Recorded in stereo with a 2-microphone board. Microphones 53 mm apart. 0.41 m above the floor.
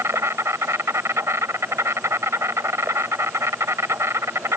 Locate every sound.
0.0 s an insect: 55° right (ahead or behind)